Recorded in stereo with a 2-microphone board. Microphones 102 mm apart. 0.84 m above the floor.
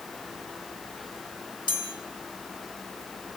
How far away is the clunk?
No clunk in this recording.